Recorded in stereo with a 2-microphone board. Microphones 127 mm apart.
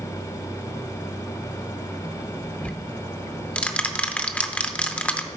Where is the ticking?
10° left (ahead or behind), 0.6 m.